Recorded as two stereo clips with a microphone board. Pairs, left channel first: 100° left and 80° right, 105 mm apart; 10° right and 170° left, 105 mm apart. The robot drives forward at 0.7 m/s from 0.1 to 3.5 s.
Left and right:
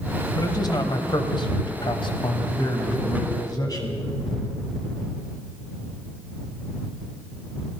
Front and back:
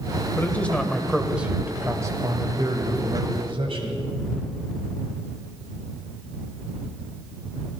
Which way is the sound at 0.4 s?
55° left.